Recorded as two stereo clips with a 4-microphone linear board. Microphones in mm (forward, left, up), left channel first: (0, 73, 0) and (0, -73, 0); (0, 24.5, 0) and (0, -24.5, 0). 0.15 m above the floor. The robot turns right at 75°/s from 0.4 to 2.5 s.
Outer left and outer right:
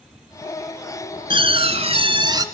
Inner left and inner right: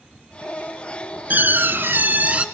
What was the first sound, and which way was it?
A door slam, 125° right.